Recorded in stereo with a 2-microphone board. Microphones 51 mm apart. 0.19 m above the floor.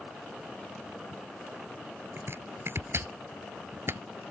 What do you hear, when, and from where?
2.2 s chopping: 50° right (ahead or behind)